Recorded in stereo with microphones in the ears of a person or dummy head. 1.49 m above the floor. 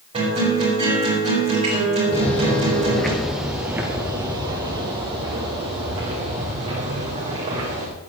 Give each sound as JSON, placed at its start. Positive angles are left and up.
{"t": 0.1, "sound": "a guitar", "side_deg": -35, "distance_m": 5.5}
{"t": 2.1, "sound": "footsteps", "side_deg": 25, "distance_m": 1.6}